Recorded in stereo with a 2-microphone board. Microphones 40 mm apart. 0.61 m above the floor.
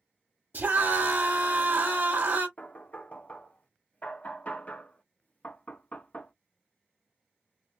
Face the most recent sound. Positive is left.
turn(degrees=40)  # may be behind; listen again after turning